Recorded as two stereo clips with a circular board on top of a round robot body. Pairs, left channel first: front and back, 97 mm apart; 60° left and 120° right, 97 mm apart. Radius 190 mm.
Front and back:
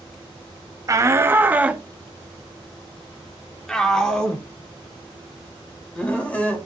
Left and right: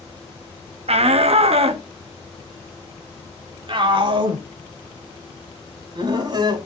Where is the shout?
125° right, 0.9 m; by 6.6 s 75° right, 3.5 m.